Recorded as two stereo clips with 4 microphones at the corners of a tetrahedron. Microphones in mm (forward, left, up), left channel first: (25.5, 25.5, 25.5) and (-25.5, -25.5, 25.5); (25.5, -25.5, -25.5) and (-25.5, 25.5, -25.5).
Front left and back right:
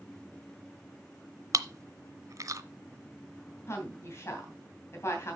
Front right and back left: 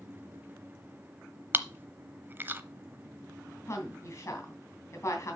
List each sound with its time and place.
1.5 s chewing: 170° right, 0.7 m
3.7 s a woman speaking: straight ahead, 2.5 m